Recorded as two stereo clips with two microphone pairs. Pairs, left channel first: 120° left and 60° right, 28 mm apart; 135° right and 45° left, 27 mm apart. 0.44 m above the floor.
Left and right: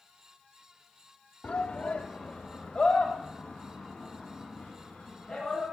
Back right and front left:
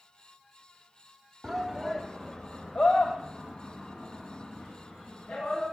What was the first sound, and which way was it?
A shout, 130° left.